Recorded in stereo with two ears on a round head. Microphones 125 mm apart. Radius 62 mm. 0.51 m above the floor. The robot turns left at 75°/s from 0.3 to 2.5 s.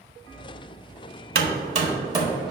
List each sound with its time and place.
1.4 s hammering: 80° right, 0.9 m; by 2.5 s centre (ahead or behind), 0.9 m